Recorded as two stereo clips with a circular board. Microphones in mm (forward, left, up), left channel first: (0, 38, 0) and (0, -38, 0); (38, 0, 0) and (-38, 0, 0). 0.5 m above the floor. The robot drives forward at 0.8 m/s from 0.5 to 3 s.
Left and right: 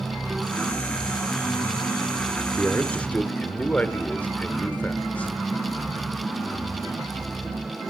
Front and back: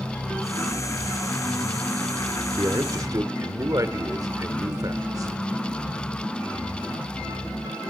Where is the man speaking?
145° left, 0.9 m; by 5.3 s 155° left, 1.1 m.